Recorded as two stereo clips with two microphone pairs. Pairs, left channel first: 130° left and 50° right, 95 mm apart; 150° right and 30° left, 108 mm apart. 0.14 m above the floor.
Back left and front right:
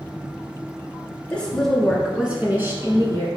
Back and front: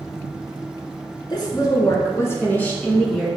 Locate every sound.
1.3 s a woman speaking: 160° right, 2 m; by 3.3 s 65° right, 1.9 m